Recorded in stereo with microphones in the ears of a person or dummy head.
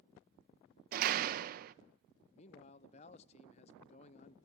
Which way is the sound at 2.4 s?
35° left (ahead or behind).